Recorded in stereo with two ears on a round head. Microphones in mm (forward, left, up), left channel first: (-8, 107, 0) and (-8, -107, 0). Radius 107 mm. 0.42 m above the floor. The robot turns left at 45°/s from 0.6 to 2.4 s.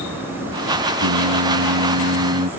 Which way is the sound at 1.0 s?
75° right.